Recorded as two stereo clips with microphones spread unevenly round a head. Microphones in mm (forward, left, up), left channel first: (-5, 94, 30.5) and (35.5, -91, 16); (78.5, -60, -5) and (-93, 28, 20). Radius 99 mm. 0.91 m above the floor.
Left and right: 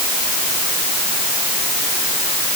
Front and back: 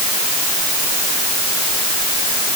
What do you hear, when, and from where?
Only background noise.